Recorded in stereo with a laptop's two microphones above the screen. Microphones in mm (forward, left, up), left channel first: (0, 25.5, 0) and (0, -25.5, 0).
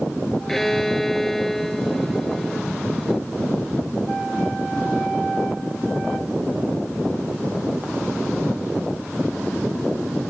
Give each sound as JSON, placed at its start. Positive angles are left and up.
{"t": 0.5, "sound": "a violin", "side_deg": 5}